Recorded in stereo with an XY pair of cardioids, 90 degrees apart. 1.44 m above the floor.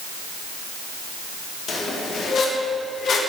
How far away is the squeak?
About 0.9 m.